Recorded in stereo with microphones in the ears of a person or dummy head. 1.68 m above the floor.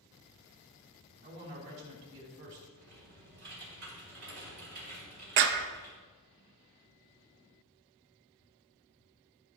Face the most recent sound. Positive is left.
turn(degrees=-55)  # may be behind; listen again after turning